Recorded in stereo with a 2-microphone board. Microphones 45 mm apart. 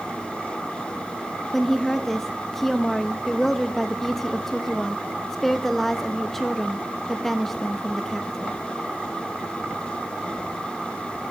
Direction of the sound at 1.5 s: 5° left (ahead or behind).